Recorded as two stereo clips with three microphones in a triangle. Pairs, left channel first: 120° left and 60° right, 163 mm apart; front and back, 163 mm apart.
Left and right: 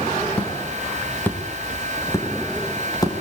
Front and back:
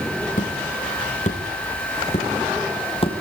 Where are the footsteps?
35° left, 7 m; by 3.2 s 55° left, 7 m.